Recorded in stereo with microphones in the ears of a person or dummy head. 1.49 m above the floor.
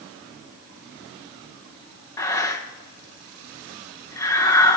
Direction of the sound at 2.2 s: 20° left (ahead or behind).